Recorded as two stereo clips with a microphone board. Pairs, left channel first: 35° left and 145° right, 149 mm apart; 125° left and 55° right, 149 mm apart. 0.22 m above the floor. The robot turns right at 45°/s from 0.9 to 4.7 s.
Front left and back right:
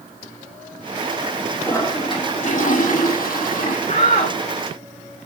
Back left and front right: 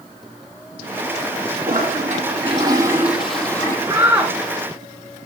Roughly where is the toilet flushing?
Ahead right.